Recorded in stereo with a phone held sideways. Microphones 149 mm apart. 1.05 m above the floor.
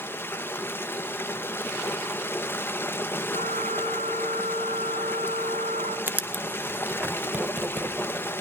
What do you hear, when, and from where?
0.0 s running water: 15° left (ahead or behind), 0.8 m
3.3 s a flute: 70° right (ahead or behind), 6 m
6.1 s writing: 10° right (ahead or behind), 0.8 m